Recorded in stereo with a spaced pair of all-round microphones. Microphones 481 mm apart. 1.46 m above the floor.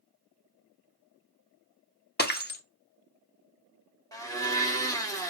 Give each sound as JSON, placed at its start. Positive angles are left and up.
{"t": 2.2, "sound": "breaking glass", "side_deg": 20, "distance_m": 0.7}
{"t": 4.1, "sound": "a blender", "side_deg": 10, "distance_m": 1.0}